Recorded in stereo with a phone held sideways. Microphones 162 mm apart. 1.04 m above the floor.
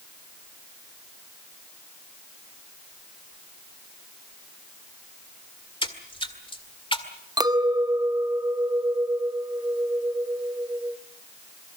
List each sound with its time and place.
5.8 s a splash: 30° left (ahead or behind), 1.8 m
7.4 s a clink: 25° right (ahead or behind), 0.7 m